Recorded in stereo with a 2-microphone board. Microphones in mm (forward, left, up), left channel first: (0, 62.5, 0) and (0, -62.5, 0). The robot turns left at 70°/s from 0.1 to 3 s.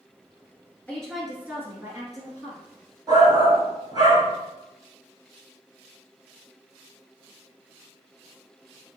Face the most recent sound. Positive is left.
turn(degrees=-35)  # may be behind; listen again after turning